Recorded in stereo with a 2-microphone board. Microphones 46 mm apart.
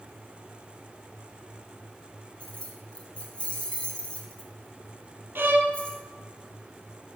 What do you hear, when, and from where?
2.4 s keys jangling: 25° left (ahead or behind), 1.5 m
5.3 s a violin: 55° right (ahead or behind), 1.0 m